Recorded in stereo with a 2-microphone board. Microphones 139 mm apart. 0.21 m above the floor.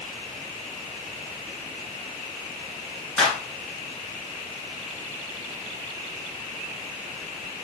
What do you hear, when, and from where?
3.2 s a clap: 5° left (ahead or behind), 1.8 m